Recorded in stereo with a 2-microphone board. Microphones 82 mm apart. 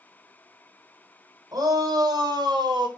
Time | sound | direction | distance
1.5 | a shout | 50° right (ahead or behind) | 3.5 m